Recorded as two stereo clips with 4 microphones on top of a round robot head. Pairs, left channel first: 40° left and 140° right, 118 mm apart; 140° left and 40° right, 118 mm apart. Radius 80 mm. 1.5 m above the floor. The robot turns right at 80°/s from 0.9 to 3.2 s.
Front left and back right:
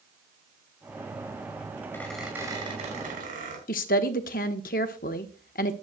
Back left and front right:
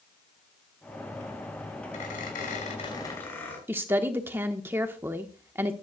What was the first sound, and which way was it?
A squeak, 110° left.